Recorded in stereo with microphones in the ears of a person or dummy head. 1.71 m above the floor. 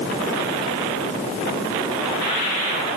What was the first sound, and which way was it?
Only background noise.